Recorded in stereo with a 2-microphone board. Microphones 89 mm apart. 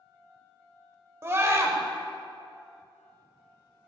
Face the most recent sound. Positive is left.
turn(degrees=-30)  # may be behind; listen again after turning